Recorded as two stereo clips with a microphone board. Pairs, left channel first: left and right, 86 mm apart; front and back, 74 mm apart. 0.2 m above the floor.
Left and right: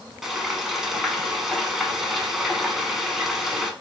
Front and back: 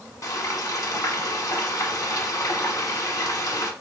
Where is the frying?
5° right, 0.9 m.